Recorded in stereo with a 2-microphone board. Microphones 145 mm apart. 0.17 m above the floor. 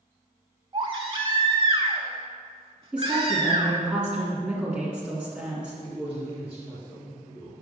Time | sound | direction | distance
0.7 | a baby crying | 40° right (ahead or behind) | 0.8 m
2.9 | a woman speaking | 5° right (ahead or behind) | 1.9 m
5.8 | a man speaking | 10° right (ahead or behind) | 2.5 m